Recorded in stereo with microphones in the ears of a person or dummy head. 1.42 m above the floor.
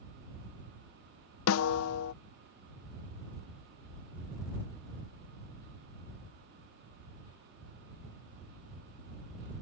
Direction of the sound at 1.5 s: 80° left.